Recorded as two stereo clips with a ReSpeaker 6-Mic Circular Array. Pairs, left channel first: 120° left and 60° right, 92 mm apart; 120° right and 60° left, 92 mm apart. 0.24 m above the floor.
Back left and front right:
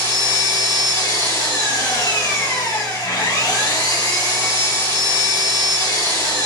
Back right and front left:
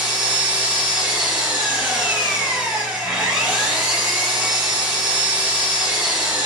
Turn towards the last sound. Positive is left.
turn(degrees=135)